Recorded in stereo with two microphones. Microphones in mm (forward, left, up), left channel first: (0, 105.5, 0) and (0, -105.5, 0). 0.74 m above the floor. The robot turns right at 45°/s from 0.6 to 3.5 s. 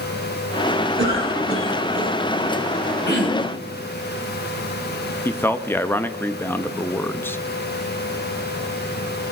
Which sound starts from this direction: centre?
A man speaking, at 5.2 s.